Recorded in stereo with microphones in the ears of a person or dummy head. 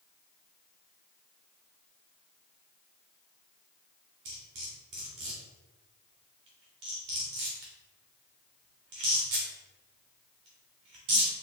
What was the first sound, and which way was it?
Cutlery clinking, 20° right (ahead or behind).